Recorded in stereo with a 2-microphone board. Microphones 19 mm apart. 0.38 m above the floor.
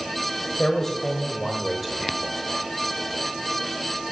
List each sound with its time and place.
0.6 s a man speaking: 30° left (ahead or behind), 1.5 m; by 2.3 s 20° right (ahead or behind), 1.1 m